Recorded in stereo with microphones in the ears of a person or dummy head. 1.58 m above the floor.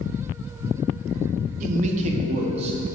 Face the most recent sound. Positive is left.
turn(degrees=-35)  # may be behind; listen again after turning